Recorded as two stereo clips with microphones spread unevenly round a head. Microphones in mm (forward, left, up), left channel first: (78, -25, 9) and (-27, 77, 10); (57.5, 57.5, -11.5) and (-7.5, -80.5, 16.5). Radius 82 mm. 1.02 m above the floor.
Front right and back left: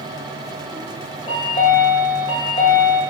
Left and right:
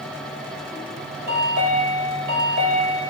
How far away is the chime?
About 0.9 m.